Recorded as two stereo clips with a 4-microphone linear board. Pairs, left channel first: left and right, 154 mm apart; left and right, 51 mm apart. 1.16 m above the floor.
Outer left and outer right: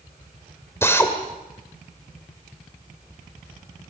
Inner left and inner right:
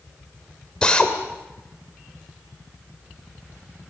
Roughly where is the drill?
Centre.